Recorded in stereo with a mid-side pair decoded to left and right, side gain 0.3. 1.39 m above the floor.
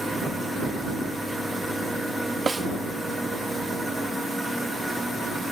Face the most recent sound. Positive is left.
turn(degrees=-35)